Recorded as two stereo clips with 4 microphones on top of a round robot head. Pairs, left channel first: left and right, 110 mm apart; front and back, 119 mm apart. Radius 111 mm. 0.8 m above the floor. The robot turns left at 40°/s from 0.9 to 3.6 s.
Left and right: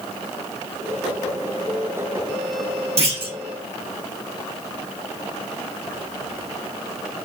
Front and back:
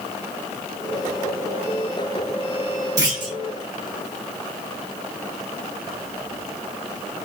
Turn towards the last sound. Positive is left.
turn(degrees=-145)